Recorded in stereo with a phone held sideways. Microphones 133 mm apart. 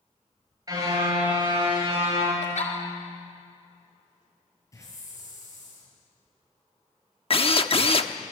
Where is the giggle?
60° left (ahead or behind), 4 m.